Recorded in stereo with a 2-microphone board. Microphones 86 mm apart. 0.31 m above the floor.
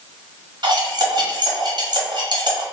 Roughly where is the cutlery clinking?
Right.